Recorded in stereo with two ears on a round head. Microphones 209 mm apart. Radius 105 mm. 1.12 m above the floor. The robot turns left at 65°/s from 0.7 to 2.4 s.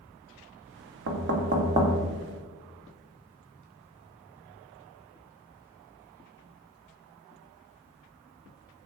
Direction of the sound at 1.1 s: 65° right (ahead or behind).